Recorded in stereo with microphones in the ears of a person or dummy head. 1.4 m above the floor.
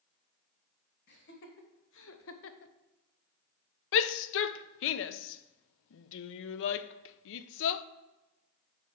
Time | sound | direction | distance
1.1 | laughter | 55° left (ahead or behind) | 1.8 m
3.9 | a shout | 70° left (ahead or behind) | 0.5 m